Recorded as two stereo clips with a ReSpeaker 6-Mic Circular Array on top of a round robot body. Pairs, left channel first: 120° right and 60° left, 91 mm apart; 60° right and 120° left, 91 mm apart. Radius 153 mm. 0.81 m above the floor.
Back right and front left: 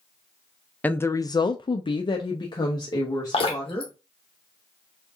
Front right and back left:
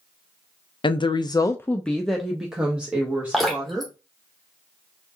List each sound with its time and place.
0.8 s a woman speaking: 50° right, 0.6 m; by 3.9 s 170° right, 1.7 m
3.3 s dripping: 150° right, 1.0 m